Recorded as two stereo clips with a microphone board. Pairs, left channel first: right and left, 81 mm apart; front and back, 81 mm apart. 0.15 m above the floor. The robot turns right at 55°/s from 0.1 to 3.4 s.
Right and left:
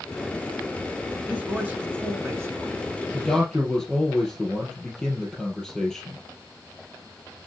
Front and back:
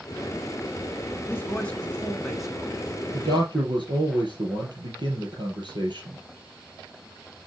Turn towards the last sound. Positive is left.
turn(degrees=-175)